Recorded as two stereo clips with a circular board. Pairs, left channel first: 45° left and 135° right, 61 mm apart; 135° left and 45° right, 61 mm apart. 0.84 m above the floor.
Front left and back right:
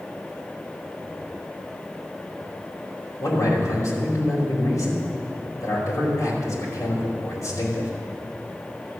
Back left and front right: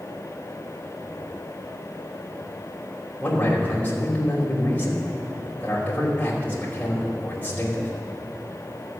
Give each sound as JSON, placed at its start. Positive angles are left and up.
{"t": 3.2, "sound": "a man speaking", "azimuth_deg": 70, "distance_m": 3.5}